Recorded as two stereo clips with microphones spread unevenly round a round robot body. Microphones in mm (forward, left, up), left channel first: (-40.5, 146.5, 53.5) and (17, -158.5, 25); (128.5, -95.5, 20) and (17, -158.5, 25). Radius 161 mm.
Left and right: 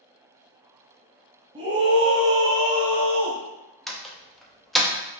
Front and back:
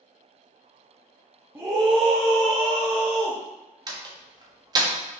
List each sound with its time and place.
1.6 s a scream: 100° right, 0.8 m; by 3.4 s 160° right, 1.8 m
3.9 s a door slam: 160° right, 0.6 m